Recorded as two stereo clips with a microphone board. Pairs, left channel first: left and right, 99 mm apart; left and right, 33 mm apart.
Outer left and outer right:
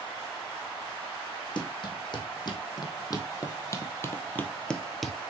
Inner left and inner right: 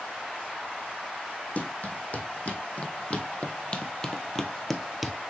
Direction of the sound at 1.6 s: 50° left (ahead or behind).